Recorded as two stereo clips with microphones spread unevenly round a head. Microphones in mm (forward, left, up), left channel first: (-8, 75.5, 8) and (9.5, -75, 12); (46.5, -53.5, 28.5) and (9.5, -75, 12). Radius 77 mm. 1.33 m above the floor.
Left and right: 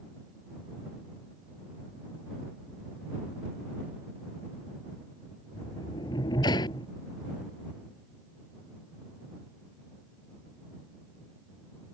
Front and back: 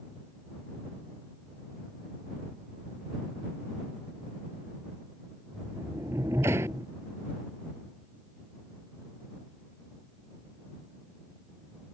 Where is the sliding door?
160° left.